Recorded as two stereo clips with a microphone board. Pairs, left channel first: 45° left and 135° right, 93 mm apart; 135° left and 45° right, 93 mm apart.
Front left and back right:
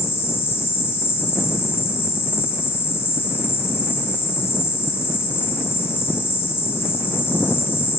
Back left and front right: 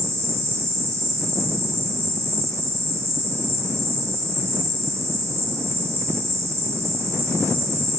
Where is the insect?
5° right, 0.8 m.